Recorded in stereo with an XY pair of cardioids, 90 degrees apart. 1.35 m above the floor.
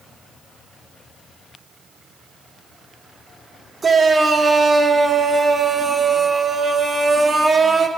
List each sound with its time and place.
3.8 s a shout: 35° right, 1.2 m